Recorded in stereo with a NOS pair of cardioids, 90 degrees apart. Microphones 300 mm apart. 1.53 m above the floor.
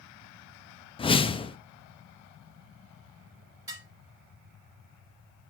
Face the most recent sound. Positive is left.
turn(degrees=-10)